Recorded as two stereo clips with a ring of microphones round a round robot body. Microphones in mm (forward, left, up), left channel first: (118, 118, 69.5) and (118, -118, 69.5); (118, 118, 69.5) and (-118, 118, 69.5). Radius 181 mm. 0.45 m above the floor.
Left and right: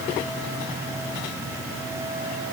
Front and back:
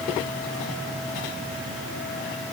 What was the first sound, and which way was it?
Only background noise.